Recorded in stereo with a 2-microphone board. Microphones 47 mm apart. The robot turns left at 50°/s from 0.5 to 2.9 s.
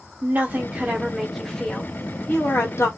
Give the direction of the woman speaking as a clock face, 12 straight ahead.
5 o'clock.